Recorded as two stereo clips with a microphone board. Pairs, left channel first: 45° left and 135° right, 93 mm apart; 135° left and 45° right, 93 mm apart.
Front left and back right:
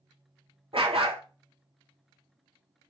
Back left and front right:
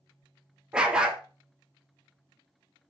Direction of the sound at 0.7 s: 125° right.